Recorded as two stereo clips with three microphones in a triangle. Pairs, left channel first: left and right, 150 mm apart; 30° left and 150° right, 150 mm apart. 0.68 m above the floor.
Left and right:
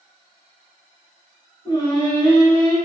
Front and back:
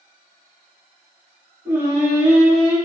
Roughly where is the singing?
Behind left.